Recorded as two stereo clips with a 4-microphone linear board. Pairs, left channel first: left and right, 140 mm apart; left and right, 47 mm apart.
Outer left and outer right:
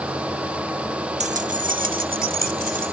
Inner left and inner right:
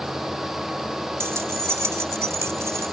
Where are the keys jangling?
55° right (ahead or behind); by 2.9 s 80° right.